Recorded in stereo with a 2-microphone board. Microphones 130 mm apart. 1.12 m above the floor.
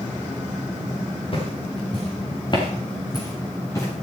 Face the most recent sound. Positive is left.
turn(degrees=20)  # may be behind; listen again after turning